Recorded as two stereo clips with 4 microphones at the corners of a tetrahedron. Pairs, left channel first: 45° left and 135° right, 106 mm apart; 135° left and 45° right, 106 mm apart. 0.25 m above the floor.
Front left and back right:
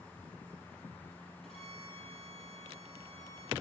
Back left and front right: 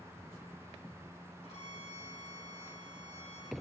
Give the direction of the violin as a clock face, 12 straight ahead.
8 o'clock.